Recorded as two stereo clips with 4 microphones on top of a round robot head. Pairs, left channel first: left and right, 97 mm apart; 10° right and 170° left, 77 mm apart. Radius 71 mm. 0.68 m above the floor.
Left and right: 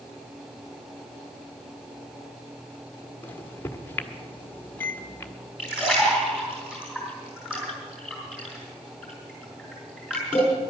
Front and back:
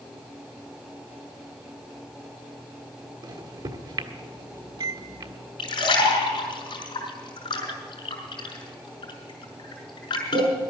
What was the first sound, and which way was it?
A microwave, 155° left.